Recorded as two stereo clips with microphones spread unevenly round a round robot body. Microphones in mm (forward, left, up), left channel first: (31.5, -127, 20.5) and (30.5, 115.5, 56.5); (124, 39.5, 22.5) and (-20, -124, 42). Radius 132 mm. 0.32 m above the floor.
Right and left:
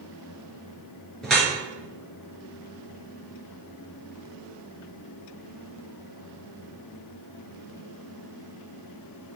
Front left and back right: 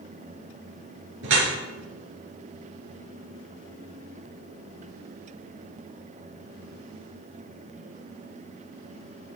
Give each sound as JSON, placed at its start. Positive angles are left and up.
{"t": 1.2, "sound": "dripping", "azimuth_deg": 180, "distance_m": 4.0}